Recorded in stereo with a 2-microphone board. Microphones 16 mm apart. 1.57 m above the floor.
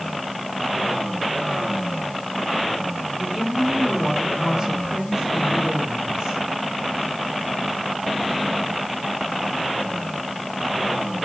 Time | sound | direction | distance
3.2 | a woman speaking | 50° right (ahead or behind) | 5.5 m